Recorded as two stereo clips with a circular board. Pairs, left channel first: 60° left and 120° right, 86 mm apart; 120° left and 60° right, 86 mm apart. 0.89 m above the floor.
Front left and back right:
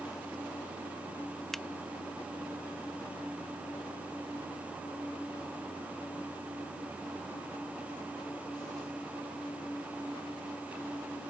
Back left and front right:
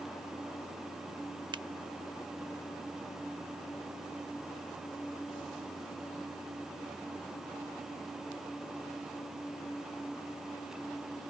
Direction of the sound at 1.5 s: 25° right.